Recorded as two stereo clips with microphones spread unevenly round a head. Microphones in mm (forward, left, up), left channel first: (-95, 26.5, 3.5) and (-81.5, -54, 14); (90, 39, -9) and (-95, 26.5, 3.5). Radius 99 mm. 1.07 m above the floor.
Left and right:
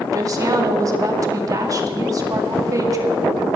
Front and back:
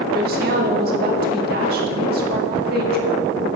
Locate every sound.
0.1 s a woman speaking: 130° right, 2 m